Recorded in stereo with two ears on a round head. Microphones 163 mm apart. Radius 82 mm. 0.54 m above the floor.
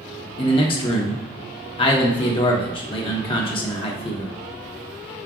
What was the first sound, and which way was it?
A man speaking, 30° left (ahead or behind).